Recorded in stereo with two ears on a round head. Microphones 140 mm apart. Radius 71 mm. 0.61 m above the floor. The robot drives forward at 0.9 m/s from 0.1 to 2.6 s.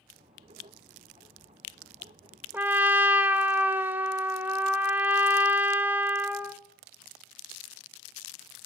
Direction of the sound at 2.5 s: 15° right (ahead or behind).